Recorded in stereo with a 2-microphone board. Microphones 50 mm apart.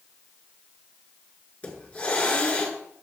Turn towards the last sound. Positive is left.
turn(degrees=30)  # may be behind; listen again after turning